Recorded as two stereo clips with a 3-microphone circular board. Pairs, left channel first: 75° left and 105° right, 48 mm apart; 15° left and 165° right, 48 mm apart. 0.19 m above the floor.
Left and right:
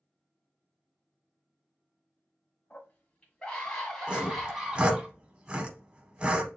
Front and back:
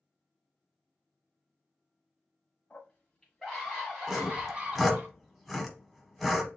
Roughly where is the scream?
Left.